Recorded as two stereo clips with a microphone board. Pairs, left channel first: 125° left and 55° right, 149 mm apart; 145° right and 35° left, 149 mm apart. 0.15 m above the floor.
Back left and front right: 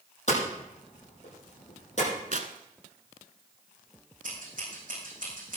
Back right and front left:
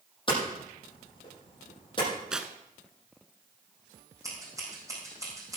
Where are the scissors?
35° right, 7 m.